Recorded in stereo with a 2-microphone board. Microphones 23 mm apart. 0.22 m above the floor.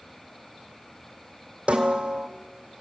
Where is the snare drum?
65° right (ahead or behind), 2.5 m.